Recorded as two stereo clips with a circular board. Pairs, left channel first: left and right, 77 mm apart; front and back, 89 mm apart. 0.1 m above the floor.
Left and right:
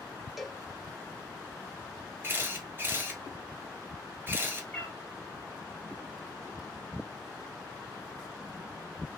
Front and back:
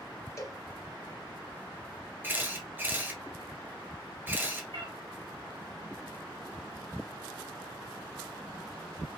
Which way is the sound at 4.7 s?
165° left.